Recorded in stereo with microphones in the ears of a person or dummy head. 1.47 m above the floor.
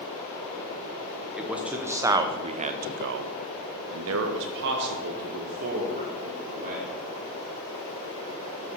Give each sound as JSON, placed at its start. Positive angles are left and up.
{"t": 1.4, "sound": "a man speaking", "side_deg": 0, "distance_m": 1.3}